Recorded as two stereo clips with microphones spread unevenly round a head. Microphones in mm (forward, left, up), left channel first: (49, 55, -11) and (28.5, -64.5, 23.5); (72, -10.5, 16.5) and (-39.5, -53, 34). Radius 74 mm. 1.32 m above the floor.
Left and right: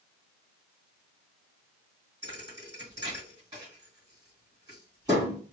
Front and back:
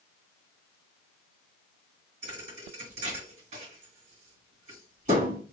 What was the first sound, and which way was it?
A thud, 155° right.